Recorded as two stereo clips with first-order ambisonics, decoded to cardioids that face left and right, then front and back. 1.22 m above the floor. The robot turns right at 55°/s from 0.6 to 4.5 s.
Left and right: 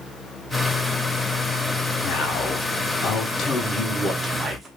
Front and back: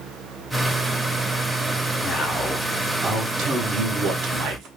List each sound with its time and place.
2.0 s a man speaking: 65° left, 0.8 m; by 4.7 s 160° right, 0.8 m